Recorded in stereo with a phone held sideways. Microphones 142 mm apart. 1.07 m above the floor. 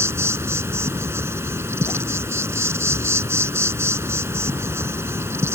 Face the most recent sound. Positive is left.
turn(degrees=-20)  # may be behind; listen again after turning